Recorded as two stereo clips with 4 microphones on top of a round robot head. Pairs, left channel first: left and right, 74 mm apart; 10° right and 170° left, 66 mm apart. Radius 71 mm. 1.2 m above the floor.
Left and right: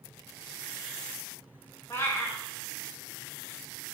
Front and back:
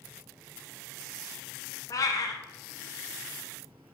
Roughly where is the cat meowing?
Ahead left.